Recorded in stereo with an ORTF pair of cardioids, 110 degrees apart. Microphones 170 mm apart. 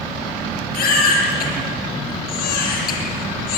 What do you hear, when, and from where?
0.7 s a baby crying: 60° left, 8.5 m